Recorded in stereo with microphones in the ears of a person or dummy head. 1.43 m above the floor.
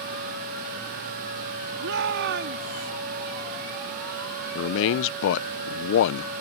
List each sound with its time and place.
1.8 s a shout: 70° right (ahead or behind); by 2.9 s 55° right (ahead or behind)
4.5 s a man speaking: 70° left (ahead or behind)